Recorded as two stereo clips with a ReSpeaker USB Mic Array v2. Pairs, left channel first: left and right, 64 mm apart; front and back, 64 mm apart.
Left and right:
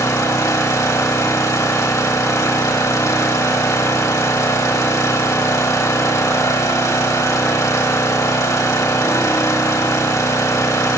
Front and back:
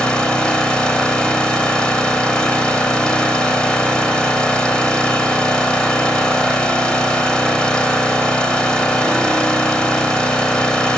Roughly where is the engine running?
Left.